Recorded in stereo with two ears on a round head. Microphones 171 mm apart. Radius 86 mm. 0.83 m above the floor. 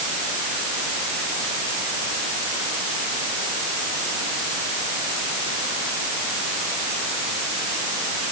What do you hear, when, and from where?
Only background noise.